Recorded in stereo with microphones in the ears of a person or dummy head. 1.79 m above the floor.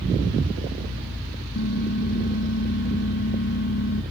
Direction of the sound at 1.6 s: 60° left (ahead or behind).